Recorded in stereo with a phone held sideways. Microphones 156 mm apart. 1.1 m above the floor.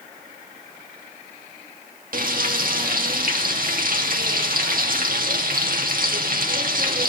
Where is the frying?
65° right (ahead or behind), 2 m.